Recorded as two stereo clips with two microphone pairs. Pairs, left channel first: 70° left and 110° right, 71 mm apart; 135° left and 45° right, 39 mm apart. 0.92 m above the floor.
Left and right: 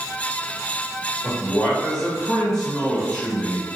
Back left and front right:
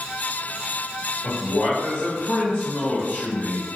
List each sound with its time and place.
1.2 s a man speaking: 155° left, 1.4 m